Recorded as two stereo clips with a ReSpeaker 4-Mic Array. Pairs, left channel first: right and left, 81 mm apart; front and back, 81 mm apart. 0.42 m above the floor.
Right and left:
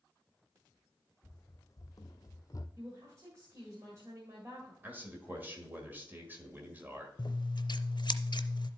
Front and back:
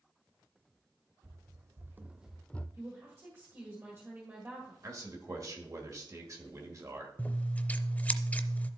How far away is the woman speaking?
About 1.7 m.